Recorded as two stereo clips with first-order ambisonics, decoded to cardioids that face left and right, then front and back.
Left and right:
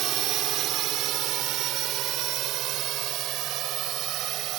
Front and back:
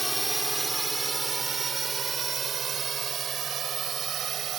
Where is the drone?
100° right; by 4.6 s 125° right.